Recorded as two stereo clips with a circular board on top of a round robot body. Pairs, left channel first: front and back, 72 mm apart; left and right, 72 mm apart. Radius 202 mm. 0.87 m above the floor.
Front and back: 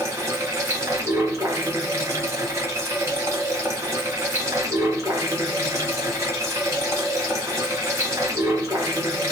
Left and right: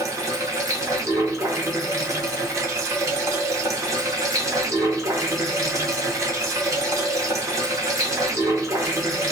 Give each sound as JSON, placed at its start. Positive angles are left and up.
{"t": 0.0, "sound": "running water", "azimuth_deg": -135, "distance_m": 0.9}